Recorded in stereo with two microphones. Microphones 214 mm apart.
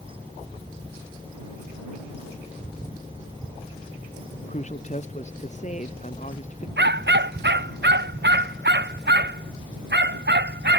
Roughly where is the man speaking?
Left.